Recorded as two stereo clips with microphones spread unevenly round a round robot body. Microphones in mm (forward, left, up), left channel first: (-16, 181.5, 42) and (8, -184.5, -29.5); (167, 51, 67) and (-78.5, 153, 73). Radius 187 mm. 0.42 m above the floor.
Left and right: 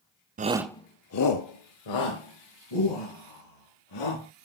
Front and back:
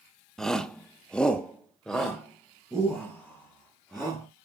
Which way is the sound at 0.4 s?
110° right.